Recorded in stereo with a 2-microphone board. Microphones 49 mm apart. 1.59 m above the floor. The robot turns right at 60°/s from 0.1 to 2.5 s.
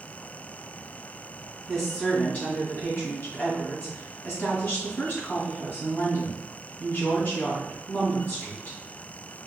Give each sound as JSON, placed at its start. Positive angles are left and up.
{"t": 1.7, "sound": "a woman speaking", "azimuth_deg": -5, "distance_m": 2.0}